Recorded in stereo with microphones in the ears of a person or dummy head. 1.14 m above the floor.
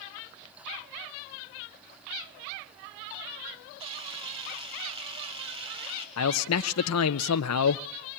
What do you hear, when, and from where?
3.8 s a camera shutter: 25° right (ahead or behind), 3.5 m
6.2 s a man speaking: 80° left, 0.6 m